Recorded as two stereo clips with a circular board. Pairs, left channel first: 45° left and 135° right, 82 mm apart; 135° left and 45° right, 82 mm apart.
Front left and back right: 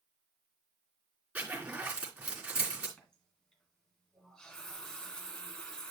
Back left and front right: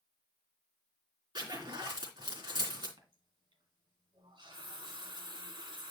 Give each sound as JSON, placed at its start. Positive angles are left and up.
{"t": 1.4, "sound": "a zipper", "azimuth_deg": -65, "distance_m": 3.0}
{"t": 3.0, "sound": "a running tap", "azimuth_deg": -35, "distance_m": 2.0}